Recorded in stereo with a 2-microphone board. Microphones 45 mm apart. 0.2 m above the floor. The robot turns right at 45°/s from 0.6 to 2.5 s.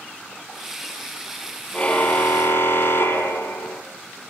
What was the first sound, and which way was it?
A car horn, 25° left.